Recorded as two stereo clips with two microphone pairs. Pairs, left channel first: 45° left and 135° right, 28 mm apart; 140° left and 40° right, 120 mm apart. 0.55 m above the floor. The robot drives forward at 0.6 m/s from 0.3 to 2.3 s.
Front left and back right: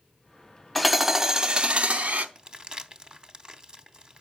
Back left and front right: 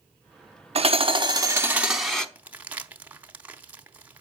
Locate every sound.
0.8 s hammering: 50° right, 0.7 m; by 2.2 s 140° right, 0.8 m
2.4 s crumpling: 110° right, 0.6 m